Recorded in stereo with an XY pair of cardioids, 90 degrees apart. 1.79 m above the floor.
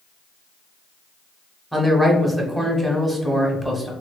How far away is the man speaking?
About 0.9 m.